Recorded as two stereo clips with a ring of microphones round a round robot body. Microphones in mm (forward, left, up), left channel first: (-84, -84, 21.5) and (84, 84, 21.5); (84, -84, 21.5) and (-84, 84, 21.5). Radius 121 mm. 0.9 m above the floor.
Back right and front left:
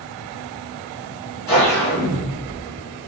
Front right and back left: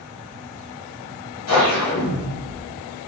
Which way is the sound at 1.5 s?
60° right.